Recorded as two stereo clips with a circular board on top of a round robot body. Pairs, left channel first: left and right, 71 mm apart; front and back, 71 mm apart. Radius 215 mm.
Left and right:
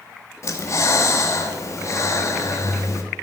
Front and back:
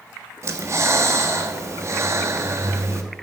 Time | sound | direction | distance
0.4 | breathing | 135° left | 1.7 m